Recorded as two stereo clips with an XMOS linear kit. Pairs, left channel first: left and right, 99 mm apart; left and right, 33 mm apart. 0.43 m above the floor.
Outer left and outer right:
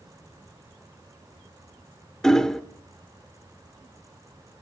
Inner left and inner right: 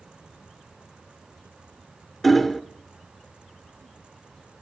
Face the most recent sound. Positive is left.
turn(degrees=5)  # may be behind; listen again after turning